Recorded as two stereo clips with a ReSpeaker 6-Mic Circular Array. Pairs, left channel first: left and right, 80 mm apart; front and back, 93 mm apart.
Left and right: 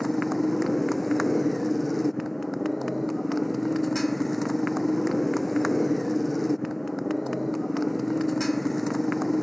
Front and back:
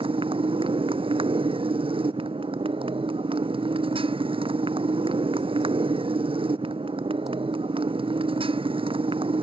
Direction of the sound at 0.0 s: Straight behind.